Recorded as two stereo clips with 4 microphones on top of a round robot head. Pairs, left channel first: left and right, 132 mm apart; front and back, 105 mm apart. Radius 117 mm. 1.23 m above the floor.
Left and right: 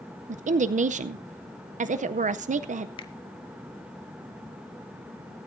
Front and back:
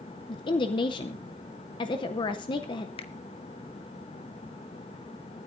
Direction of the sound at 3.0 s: 35° left.